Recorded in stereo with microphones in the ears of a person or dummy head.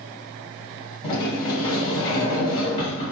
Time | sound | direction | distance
1.0 | a sliding door | 35° left (ahead or behind) | 2.5 m